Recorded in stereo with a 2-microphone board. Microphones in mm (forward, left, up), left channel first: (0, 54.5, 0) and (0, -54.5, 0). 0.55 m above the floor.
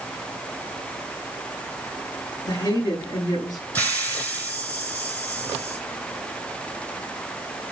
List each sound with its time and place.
2.5 s a woman speaking: 40° left (ahead or behind), 8.5 m
3.8 s a hiss: 15° left (ahead or behind), 3.5 m